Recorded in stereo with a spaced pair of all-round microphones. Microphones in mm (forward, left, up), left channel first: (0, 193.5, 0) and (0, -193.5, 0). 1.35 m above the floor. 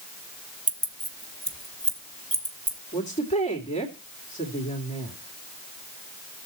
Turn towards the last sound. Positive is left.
turn(degrees=15)  # may be behind; listen again after turning